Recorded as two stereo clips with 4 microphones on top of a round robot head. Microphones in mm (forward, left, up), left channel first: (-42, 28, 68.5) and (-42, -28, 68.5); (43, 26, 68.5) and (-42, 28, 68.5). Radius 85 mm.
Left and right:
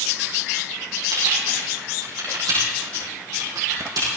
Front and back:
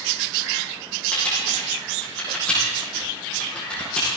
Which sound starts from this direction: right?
Typing on a keyboard, at 1.1 s.